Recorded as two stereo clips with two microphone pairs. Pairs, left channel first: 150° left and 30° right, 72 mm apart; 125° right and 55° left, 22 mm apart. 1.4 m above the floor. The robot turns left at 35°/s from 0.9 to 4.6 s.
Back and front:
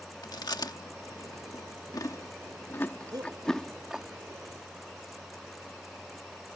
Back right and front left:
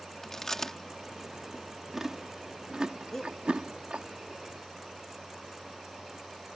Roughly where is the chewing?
Behind.